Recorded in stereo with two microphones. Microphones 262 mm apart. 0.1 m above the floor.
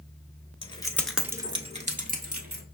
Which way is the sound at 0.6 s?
20° left (ahead or behind).